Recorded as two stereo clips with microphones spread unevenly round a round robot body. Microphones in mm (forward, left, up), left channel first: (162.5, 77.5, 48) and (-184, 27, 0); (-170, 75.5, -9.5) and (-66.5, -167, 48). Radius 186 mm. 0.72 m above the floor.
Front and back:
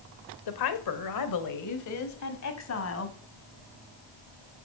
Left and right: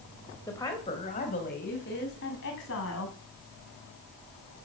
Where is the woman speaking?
30° left, 2.5 m; by 3.1 s 60° left, 5 m.